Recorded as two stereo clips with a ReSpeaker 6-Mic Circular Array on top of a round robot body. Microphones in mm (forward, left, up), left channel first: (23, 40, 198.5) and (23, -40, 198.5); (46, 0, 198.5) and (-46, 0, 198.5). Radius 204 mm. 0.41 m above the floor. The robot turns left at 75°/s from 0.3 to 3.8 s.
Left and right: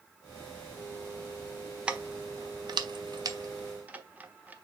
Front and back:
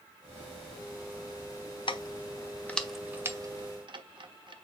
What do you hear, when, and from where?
1.9 s keys jangling: 15° right, 1.4 m; by 4.5 s 160° right, 1.4 m